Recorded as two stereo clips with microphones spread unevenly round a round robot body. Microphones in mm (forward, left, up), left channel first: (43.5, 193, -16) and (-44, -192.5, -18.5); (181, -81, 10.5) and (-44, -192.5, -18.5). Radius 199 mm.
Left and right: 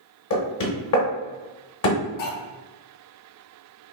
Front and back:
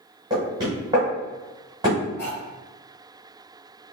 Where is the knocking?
130° left, 0.8 m.